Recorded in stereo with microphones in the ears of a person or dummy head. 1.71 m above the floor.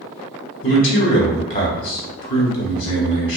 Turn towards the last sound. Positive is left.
turn(degrees=45)  # may be behind; listen again after turning